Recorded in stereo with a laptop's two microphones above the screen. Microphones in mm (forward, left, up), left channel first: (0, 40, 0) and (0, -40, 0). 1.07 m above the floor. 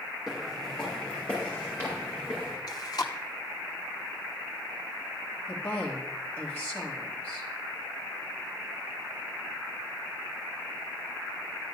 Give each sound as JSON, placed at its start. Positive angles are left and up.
{"t": 0.3, "sound": "footsteps", "side_deg": -5, "distance_m": 3.0}
{"t": 2.7, "sound": "chewing", "side_deg": 50, "distance_m": 0.8}
{"t": 5.5, "sound": "a woman speaking", "side_deg": 25, "distance_m": 1.4}